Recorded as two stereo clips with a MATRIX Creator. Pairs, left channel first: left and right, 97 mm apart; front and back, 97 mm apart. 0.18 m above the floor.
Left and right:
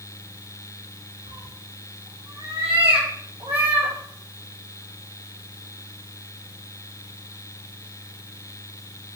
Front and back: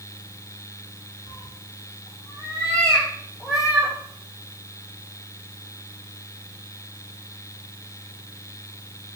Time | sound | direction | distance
1.3 | a cat meowing | 50° right | 1.9 m